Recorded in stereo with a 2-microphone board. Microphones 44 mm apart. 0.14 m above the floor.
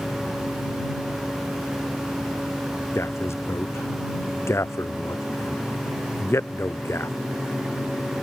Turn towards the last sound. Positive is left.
turn(degrees=70)  # may be behind; listen again after turning